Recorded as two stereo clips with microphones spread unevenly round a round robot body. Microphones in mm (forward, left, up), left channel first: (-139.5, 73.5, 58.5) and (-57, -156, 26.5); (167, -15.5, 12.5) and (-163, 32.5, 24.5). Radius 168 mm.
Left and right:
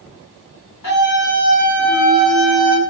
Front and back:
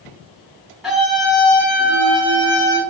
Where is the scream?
85° left, 5.5 m; by 2.8 s 75° left, 5.5 m.